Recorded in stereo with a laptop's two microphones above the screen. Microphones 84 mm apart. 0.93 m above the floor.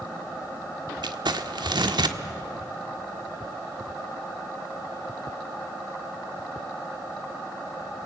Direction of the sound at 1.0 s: 70° right (ahead or behind).